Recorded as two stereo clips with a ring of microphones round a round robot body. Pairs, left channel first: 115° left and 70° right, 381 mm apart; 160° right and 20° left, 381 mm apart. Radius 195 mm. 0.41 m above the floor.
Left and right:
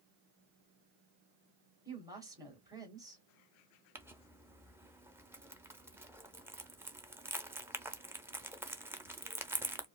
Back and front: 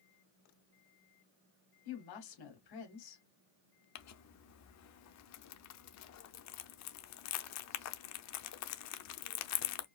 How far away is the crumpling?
About 0.7 m.